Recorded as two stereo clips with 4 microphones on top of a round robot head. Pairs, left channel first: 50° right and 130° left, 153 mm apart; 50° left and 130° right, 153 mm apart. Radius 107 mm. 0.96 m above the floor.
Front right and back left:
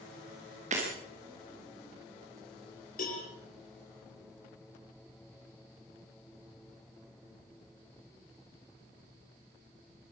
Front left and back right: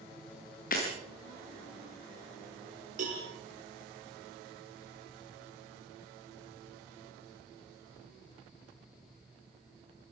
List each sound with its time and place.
0.7 s breaking glass: 85° left, 6.5 m
3.0 s a cowbell: 85° right, 5.5 m